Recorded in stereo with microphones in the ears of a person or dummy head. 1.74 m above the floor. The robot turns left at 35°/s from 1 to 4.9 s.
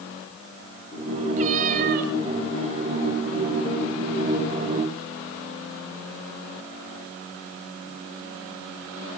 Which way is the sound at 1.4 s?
45° right (ahead or behind).